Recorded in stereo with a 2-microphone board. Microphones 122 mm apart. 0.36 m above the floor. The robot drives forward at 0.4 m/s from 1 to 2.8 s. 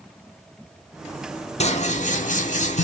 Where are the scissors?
60° left (ahead or behind), 0.6 m; by 2.8 s 65° left (ahead or behind), 0.5 m.